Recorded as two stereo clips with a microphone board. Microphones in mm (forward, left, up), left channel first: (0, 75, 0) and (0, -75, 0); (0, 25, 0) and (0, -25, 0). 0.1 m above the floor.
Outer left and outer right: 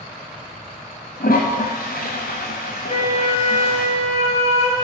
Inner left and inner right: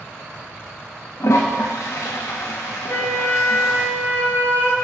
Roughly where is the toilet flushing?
Left.